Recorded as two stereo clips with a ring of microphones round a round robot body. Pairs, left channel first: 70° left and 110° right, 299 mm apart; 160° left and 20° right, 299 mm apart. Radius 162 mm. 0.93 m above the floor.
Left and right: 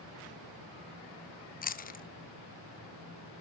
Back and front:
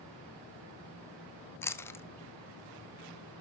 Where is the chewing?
85° left, 0.9 m.